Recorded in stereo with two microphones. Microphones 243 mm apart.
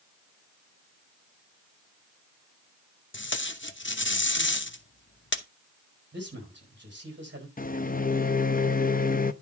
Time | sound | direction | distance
3.1 | tape being pulled | 50° left (ahead or behind) | 0.8 m
6.1 | a man speaking | 45° right (ahead or behind) | 5 m
7.6 | a microwave | 35° left (ahead or behind) | 0.6 m